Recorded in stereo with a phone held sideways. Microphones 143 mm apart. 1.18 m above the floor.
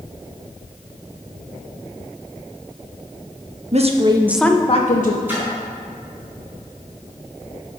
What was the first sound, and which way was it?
A woman speaking, 50° right (ahead or behind).